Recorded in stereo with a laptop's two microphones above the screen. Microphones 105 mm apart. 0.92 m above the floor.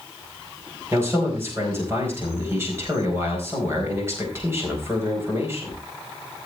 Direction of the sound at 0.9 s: 25° right (ahead or behind).